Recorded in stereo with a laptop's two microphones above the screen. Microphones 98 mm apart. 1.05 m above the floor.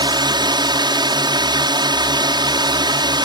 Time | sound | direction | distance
0.0 | a drone | 50° right (ahead or behind) | ?